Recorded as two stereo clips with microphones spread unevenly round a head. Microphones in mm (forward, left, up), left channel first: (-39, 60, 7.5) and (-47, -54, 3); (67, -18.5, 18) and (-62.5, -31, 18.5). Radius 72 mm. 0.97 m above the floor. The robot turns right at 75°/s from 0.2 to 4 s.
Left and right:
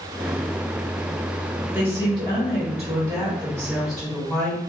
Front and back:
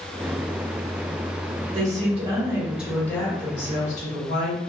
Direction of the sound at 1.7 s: 170° right.